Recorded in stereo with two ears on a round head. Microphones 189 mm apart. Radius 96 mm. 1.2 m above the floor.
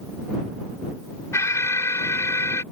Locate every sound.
1.3 s an alarm: 15° left (ahead or behind)